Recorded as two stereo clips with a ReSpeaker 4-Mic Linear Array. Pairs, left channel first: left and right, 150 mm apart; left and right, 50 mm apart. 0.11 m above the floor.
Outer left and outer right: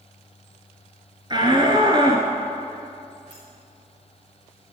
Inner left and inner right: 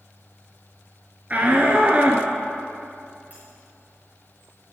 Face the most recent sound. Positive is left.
turn(degrees=-35)  # may be behind; listen again after turning